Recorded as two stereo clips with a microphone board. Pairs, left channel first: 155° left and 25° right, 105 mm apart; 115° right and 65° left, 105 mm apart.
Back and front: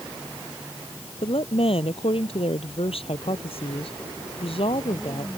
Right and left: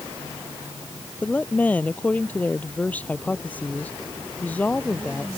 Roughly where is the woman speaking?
Behind.